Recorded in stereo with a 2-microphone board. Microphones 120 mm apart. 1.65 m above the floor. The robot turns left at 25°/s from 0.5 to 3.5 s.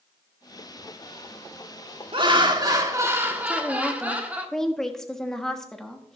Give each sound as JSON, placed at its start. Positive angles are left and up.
{"t": 2.1, "sound": "laughter", "azimuth_deg": -130, "distance_m": 1.4}
{"t": 3.5, "sound": "a woman speaking", "side_deg": 5, "distance_m": 1.3}